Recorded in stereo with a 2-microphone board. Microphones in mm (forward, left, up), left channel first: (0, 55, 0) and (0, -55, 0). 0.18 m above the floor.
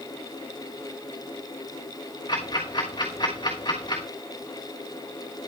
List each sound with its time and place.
2.3 s ticking: 45° left (ahead or behind), 3.5 m